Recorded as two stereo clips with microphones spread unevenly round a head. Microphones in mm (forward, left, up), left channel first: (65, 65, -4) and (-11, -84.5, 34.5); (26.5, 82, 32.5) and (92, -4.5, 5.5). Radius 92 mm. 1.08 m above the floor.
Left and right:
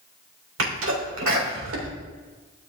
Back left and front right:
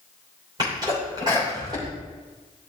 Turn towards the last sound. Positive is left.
turn(degrees=-120)